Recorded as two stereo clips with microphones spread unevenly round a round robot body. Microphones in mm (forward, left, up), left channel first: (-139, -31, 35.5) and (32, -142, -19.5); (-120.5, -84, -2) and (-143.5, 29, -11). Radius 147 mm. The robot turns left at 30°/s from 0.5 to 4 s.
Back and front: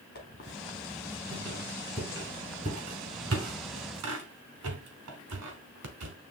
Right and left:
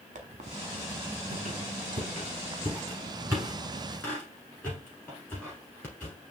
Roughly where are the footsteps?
No footsteps in this recording.